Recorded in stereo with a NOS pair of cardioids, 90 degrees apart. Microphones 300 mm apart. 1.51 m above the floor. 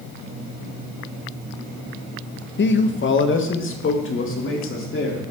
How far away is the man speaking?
About 0.9 m.